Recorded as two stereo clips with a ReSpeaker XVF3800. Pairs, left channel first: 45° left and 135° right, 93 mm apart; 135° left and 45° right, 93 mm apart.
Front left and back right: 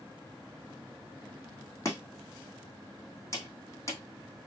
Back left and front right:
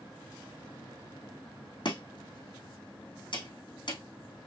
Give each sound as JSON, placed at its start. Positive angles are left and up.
{"t": 1.9, "sound": "chopping", "azimuth_deg": 105, "distance_m": 3.0}